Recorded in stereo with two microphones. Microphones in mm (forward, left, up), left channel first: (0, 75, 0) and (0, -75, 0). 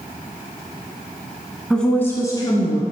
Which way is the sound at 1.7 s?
5° left (ahead or behind).